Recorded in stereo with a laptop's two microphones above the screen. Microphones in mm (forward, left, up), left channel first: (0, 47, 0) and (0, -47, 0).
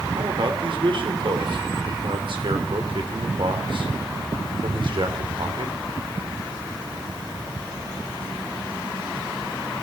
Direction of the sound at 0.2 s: 60° right (ahead or behind).